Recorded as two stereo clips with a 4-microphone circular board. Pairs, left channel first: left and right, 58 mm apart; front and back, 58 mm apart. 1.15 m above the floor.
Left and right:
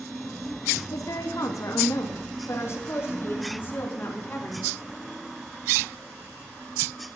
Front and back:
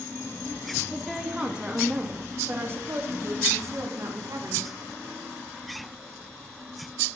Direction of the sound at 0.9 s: 90° left.